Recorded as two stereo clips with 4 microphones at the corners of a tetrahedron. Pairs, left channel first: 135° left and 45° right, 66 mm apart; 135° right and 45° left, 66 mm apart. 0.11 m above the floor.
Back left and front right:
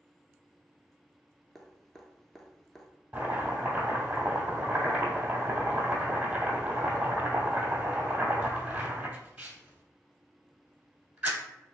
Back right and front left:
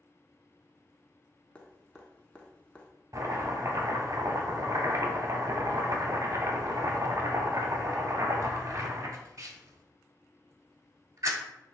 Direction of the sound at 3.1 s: 20° left.